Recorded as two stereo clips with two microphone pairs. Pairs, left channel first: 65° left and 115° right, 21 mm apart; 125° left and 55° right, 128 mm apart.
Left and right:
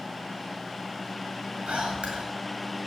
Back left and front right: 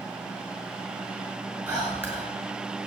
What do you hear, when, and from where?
1.7 s whispering: 130° right, 8.5 m